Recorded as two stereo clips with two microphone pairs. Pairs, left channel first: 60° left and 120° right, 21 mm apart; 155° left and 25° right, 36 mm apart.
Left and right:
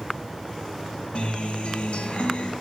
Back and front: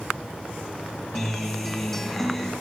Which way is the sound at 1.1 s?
70° left.